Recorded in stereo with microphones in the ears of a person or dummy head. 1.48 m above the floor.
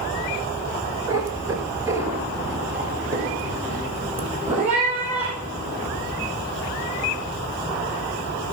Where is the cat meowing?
20° right (ahead or behind), 1.6 m; by 5.9 s 10° right (ahead or behind), 4.5 m.